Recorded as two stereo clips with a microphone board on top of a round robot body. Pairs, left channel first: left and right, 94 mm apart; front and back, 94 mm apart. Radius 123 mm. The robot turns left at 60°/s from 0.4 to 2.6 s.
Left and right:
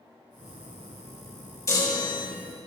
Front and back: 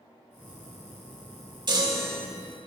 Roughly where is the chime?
Behind left.